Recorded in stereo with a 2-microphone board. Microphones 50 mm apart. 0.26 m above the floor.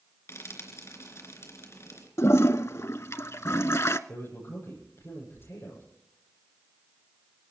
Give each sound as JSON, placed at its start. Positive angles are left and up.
{"t": 0.3, "sound": "frying", "side_deg": 65, "distance_m": 3.5}
{"t": 2.2, "sound": "a toilet flushing", "side_deg": 70, "distance_m": 0.6}
{"t": 4.1, "sound": "a man speaking", "side_deg": 65, "distance_m": 8.0}